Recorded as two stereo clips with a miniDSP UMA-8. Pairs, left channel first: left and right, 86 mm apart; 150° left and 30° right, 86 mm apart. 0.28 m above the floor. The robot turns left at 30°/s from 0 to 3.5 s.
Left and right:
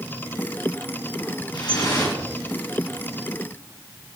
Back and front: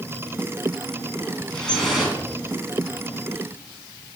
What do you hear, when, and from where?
1.5 s dripping: 70° left, 3 m; by 2.1 s 50° left, 3 m